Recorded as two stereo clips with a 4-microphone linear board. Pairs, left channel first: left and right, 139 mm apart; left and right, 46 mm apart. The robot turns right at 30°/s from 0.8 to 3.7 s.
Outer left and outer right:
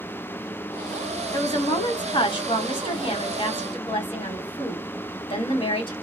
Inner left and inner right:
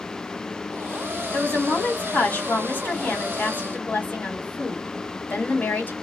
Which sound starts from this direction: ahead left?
A woman speaking, at 1.3 s.